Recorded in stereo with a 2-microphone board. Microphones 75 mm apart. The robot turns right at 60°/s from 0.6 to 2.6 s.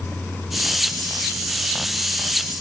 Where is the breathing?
No breathing in this recording.